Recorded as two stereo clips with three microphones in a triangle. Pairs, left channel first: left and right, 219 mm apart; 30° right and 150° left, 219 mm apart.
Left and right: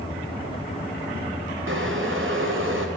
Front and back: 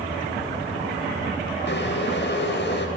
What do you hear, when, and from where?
1.7 s boiling: 65° right, 4 m